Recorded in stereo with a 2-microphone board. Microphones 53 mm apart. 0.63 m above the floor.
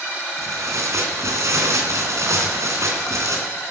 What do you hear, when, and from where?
0.4 s tearing paper: 65° right (ahead or behind), 3.5 m